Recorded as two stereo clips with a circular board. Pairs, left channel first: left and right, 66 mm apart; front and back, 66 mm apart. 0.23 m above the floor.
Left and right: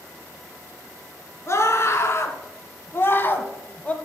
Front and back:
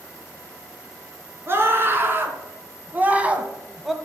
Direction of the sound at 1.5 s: 130° left.